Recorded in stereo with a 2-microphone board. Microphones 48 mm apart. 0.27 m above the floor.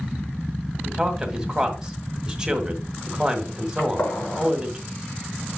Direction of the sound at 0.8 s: 15° right (ahead or behind).